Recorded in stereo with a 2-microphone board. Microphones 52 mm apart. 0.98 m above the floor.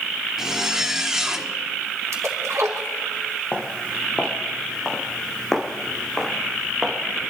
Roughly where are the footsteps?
Left.